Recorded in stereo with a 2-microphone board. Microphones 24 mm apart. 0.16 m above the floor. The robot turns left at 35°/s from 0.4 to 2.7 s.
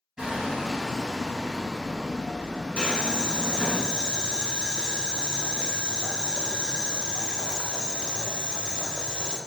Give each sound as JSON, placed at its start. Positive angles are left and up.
{"t": 0.2, "sound": "hammering", "azimuth_deg": -145, "distance_m": 1.9}
{"t": 2.8, "sound": "boiling", "side_deg": 45, "distance_m": 0.6}